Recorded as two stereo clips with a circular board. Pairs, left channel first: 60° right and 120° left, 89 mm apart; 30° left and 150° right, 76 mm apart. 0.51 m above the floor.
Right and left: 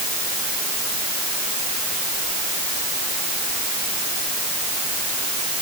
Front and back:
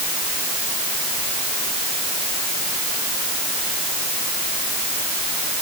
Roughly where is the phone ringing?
I don't hear a phone ringing.